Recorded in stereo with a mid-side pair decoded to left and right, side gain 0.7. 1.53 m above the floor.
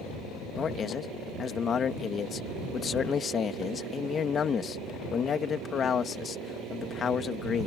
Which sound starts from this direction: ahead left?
A man speaking, at 0.6 s.